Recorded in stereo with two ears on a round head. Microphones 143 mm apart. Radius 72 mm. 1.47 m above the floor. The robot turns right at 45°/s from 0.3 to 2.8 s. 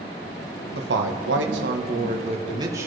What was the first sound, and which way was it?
A man speaking, 110° right.